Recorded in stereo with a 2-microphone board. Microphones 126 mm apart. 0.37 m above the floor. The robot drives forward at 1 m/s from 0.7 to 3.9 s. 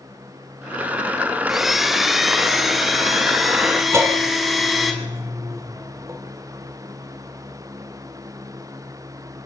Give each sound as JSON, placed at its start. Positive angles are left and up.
{"t": 1.5, "sound": "a blender", "side_deg": 0, "distance_m": 1.3}
{"t": 3.9, "sound": "a bell", "side_deg": -20, "distance_m": 3.0}